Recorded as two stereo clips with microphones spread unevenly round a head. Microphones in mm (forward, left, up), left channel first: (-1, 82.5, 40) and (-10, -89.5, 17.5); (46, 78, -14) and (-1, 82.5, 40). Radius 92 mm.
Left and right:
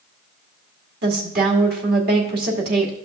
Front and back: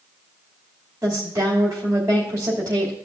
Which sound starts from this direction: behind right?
A woman speaking, at 1.0 s.